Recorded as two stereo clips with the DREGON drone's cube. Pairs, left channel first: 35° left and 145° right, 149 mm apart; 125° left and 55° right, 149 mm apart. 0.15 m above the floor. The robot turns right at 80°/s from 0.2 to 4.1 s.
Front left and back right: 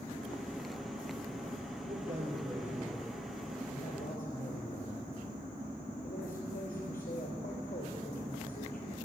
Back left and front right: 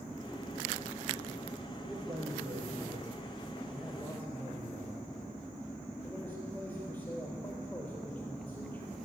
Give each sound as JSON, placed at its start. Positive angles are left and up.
{"t": 1.9, "sound": "a man speaking", "azimuth_deg": -135, "distance_m": 4.0}